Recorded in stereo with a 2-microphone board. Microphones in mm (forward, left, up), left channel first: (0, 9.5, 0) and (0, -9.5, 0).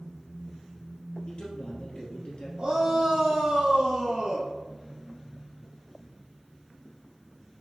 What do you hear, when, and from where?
1.3 s a man speaking: 55° left (ahead or behind), 2.5 m
2.6 s a shout: 50° right (ahead or behind), 2.5 m